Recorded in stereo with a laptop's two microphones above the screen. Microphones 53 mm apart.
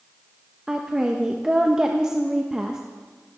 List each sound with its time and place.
0.7 s a woman speaking: 15° right (ahead or behind), 1.1 m